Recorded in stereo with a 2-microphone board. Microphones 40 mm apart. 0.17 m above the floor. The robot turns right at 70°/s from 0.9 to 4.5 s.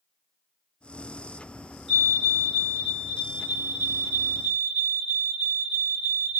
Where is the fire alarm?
15° left (ahead or behind), 2 m; by 6.4 s 15° right (ahead or behind), 2 m.